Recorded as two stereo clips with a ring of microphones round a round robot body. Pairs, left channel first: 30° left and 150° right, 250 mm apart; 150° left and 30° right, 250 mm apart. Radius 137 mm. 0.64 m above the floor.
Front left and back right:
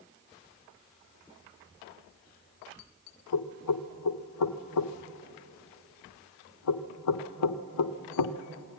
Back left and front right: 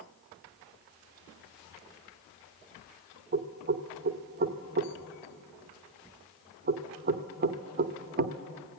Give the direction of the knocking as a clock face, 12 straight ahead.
11 o'clock.